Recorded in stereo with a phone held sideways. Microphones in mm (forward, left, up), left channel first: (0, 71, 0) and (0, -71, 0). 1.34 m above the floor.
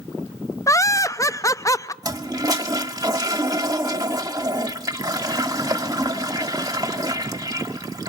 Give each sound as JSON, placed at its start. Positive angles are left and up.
{"t": 0.7, "sound": "laughter", "side_deg": 25, "distance_m": 0.6}
{"t": 2.0, "sound": "a toilet flushing", "side_deg": -25, "distance_m": 1.0}